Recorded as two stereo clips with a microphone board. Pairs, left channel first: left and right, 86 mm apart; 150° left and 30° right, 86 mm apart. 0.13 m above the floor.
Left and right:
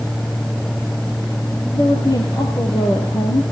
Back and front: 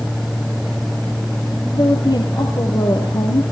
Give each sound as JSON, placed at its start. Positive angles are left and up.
{"t": 1.7, "sound": "a woman speaking", "azimuth_deg": 125, "distance_m": 3.5}